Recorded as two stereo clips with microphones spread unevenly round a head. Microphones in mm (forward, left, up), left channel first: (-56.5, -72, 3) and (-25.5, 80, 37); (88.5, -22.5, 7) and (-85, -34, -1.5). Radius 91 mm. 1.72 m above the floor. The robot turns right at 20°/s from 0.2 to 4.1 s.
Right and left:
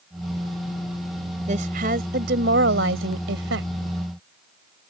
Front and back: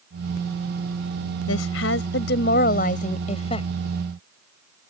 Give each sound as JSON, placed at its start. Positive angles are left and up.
{"t": 1.5, "sound": "a woman speaking", "azimuth_deg": 25}